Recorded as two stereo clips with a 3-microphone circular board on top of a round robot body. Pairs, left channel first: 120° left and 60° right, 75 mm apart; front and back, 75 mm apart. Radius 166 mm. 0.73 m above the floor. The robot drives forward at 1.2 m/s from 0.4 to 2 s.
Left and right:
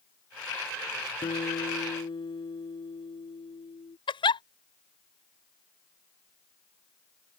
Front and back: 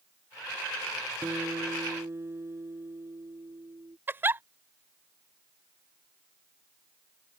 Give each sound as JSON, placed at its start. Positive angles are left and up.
{"t": 1.2, "sound": "a guitar", "azimuth_deg": 120}
{"t": 4.1, "sound": "a giggle", "azimuth_deg": 115}